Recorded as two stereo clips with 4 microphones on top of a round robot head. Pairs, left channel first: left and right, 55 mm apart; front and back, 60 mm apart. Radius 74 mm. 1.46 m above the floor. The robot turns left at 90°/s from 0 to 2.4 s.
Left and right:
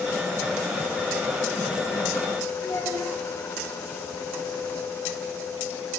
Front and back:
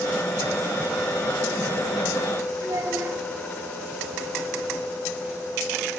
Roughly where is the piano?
I don't hear a piano.